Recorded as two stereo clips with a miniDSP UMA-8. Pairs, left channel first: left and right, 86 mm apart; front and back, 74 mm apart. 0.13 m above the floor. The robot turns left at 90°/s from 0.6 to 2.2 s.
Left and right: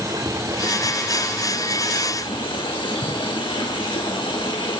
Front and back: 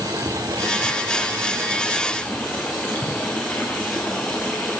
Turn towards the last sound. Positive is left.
turn(degrees=70)